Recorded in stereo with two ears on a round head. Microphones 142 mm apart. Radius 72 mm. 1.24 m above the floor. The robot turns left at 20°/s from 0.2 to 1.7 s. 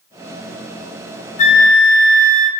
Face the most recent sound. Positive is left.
turn(degrees=50)  # may be behind; listen again after turning